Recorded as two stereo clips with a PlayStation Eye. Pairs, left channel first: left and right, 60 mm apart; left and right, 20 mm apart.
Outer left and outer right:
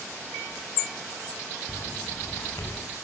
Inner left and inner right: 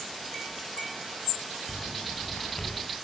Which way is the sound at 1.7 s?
50° left (ahead or behind).